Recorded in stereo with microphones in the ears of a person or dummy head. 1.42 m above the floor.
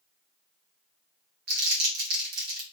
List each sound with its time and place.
1.5 s crumpling: 55° right (ahead or behind), 1.0 m